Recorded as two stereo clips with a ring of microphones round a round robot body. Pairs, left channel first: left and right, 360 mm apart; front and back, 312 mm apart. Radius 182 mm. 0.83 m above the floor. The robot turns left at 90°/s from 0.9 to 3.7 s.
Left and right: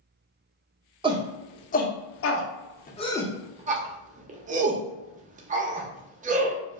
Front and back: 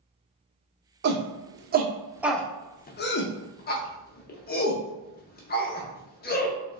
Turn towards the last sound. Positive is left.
turn(degrees=-35)